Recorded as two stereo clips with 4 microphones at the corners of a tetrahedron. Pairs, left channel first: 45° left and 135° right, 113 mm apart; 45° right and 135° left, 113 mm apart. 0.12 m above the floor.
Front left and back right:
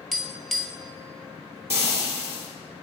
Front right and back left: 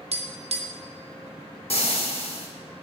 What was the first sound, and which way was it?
Tapping, 135° left.